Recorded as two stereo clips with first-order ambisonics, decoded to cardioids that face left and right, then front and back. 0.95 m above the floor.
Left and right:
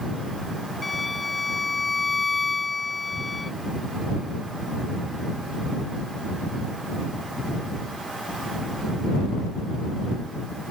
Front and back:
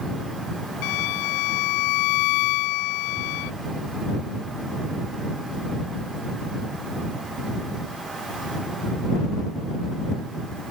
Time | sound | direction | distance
0.8 | a violin | 10° left | ?